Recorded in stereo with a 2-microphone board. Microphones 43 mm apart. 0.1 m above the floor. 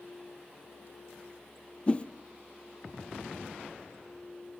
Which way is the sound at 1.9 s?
25° left (ahead or behind).